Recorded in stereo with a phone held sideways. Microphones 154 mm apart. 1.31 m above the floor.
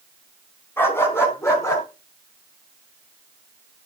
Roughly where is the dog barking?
Centre.